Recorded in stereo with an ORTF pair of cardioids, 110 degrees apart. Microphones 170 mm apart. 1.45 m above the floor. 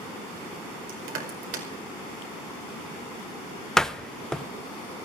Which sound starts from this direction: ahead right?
Crushing, at 0.9 s.